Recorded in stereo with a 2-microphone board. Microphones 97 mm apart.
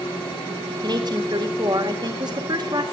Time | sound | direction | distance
0.8 | a woman speaking | 45° right (ahead or behind) | 1.9 m